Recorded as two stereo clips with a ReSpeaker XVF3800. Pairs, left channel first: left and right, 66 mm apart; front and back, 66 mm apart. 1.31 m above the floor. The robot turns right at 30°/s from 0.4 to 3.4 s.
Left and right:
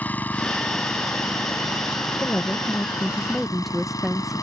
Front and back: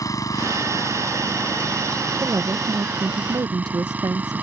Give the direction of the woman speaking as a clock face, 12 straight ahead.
7 o'clock.